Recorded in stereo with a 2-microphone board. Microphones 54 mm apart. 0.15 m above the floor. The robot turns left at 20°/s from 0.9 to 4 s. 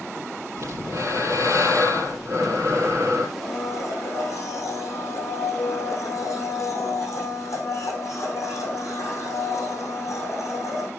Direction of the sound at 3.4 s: 50° left (ahead or behind).